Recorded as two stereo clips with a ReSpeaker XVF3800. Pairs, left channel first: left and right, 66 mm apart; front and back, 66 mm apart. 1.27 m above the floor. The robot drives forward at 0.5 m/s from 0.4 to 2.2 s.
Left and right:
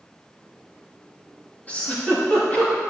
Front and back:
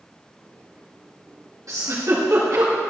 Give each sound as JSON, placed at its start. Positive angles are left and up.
{"t": 1.7, "sound": "a giggle", "azimuth_deg": 155, "distance_m": 2.5}